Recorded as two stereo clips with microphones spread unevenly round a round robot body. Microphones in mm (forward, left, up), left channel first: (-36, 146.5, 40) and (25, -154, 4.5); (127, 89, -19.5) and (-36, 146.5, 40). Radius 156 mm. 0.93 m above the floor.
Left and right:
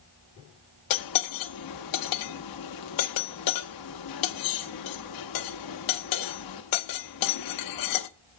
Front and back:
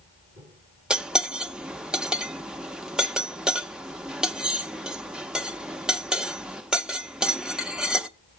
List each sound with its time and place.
0.9 s cutlery clinking: 75° left, 0.8 m